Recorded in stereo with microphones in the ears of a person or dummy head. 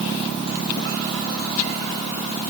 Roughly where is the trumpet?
I don't hear a trumpet.